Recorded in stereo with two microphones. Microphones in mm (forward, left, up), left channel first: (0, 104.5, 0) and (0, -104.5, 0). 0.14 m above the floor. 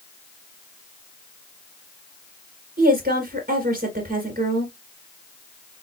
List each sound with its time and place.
2.8 s a woman speaking: 45° right (ahead or behind), 1.9 m